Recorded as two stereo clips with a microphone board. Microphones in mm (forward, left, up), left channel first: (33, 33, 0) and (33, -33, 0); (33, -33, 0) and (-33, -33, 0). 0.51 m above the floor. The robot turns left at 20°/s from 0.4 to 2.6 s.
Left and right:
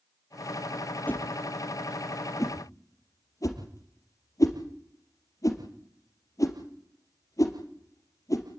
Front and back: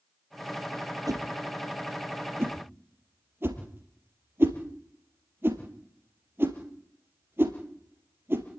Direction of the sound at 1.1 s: 155° left.